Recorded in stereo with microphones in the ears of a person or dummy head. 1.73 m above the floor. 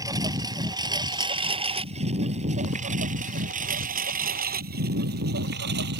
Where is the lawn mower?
15° right (ahead or behind); by 6.0 s 55° right (ahead or behind).